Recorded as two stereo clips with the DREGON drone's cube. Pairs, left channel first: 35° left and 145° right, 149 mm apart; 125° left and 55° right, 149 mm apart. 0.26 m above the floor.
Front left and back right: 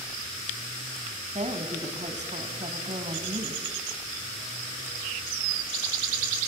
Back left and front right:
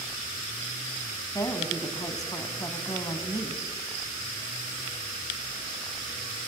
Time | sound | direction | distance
1.4 | a woman speaking | 170° right | 3 m